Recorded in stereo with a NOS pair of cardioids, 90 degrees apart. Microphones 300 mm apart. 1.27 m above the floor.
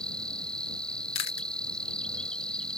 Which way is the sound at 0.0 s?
5° left.